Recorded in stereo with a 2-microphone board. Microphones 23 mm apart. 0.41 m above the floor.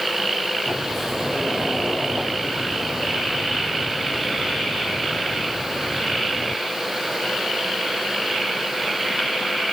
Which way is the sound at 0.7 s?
20° right (ahead or behind).